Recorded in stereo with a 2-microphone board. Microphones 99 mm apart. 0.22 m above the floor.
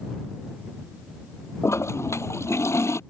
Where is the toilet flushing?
30° left (ahead or behind).